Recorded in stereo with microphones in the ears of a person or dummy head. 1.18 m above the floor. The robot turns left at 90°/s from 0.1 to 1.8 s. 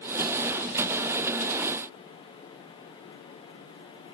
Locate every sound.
Only background noise.